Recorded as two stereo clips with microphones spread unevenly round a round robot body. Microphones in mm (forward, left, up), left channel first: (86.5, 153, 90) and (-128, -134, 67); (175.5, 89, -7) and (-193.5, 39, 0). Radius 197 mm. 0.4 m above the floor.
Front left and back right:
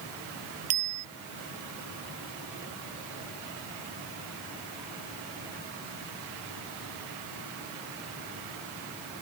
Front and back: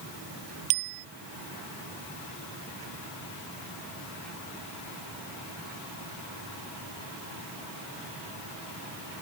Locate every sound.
0.7 s a bicycle bell: 170° right